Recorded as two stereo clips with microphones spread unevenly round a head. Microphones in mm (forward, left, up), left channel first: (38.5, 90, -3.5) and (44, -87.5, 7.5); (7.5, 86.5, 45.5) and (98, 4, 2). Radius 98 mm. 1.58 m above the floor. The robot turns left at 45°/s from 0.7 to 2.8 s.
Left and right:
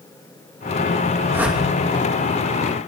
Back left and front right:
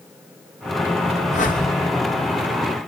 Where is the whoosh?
165° right, 2.5 m; by 1.6 s straight behind, 2.5 m.